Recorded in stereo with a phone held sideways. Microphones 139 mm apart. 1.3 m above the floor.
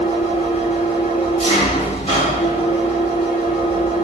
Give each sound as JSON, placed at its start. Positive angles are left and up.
{"t": 0.0, "sound": "an engine running", "side_deg": 45, "distance_m": 1.4}